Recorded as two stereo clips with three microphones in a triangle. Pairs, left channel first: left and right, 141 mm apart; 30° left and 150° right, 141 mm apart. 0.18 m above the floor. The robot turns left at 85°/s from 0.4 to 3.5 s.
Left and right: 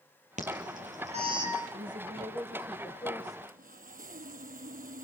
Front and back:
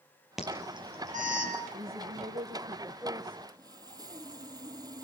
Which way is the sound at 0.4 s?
65° right.